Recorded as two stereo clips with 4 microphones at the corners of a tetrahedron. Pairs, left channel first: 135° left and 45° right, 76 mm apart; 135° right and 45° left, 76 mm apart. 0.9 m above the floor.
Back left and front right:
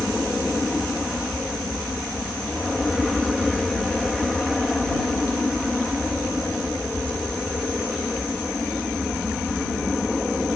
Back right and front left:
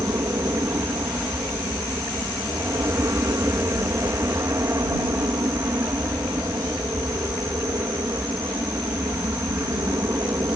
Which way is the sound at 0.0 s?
45° left.